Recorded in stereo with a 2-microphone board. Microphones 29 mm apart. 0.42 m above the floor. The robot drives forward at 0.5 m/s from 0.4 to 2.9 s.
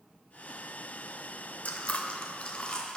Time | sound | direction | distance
1.6 | chewing | 55° left (ahead or behind) | 0.7 m